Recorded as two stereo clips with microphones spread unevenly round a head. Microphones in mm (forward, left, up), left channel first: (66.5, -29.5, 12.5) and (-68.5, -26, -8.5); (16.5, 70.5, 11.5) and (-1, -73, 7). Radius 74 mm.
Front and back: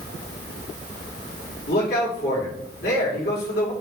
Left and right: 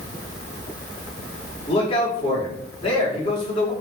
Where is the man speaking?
30° left, 5 m.